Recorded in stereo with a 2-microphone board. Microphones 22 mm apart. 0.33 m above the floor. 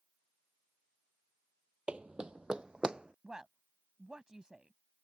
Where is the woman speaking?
35° right (ahead or behind).